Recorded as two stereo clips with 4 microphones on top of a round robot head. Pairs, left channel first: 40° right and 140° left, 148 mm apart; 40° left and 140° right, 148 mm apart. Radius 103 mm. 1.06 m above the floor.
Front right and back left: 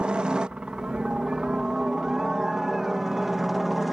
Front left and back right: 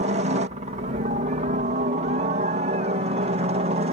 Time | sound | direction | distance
0.0 | a helicopter | 140° right | ?